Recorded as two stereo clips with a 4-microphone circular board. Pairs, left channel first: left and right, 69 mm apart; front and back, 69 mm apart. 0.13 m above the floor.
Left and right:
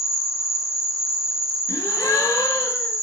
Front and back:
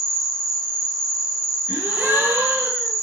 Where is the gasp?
115° left, 0.6 m.